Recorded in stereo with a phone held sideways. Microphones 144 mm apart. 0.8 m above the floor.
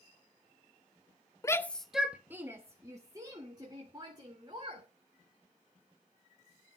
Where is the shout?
20° left (ahead or behind), 0.6 m; by 4.8 s 30° right (ahead or behind), 3 m.